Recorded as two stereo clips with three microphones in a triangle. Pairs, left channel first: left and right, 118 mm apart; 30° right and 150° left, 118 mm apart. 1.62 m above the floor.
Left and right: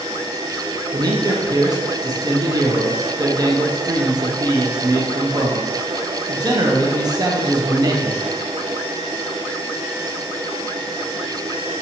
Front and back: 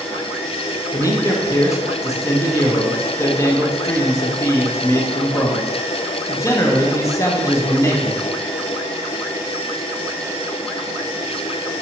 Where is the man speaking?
70° right, 0.5 m.